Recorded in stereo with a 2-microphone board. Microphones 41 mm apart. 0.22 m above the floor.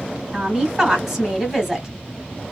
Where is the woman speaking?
5° right (ahead or behind), 1.4 m.